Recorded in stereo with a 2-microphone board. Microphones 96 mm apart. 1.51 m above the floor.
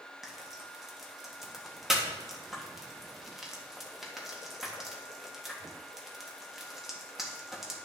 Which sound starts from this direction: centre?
Frying, at 0.2 s.